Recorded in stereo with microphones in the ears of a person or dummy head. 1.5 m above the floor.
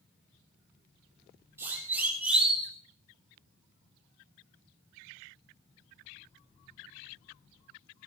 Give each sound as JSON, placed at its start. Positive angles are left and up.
{"t": 1.6, "sound": "a siren", "side_deg": -15, "distance_m": 6.0}